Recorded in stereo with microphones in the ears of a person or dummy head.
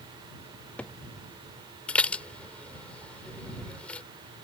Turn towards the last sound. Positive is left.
turn(degrees=5)  # may be behind; listen again after turning